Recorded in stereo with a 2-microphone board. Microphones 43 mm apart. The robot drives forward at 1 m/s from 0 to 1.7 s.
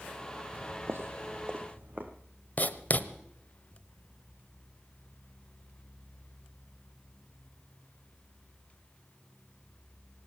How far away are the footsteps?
About 1.1 m.